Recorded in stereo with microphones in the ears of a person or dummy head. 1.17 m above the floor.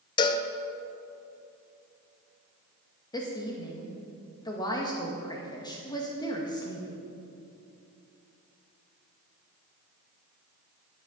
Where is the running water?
No running water in this recording.